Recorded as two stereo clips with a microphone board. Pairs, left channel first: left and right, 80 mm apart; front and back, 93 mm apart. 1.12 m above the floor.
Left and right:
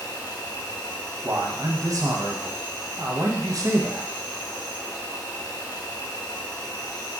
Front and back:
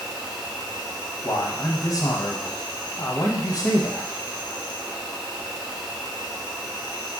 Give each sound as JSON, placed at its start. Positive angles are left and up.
{"t": 0.0, "sound": "an insect", "azimuth_deg": 110, "distance_m": 0.9}
{"t": 1.2, "sound": "a man speaking", "azimuth_deg": -45, "distance_m": 0.8}